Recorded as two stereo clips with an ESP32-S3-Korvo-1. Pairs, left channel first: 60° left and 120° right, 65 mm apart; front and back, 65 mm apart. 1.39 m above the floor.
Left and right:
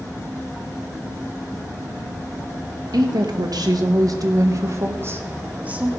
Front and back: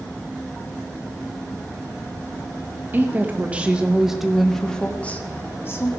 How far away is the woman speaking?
About 1.8 m.